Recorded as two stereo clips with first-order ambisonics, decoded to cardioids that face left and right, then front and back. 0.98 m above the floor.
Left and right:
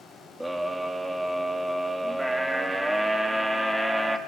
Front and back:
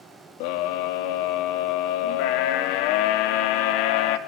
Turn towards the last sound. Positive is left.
turn(degrees=-5)